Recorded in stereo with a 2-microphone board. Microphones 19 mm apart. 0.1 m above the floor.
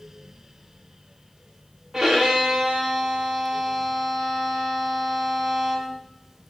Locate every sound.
1.9 s a violin: 20° right (ahead or behind), 5.5 m